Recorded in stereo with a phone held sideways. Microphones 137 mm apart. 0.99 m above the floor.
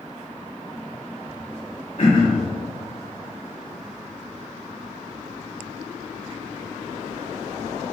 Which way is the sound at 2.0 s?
60° left (ahead or behind).